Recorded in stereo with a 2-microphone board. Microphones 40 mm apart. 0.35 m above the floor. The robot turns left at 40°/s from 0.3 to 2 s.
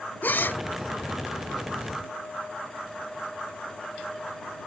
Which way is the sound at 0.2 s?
50° left (ahead or behind).